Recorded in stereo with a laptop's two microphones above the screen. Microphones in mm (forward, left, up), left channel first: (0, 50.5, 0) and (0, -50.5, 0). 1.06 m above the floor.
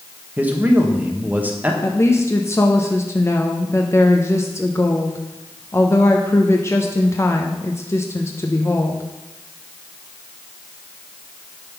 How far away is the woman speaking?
About 0.6 m.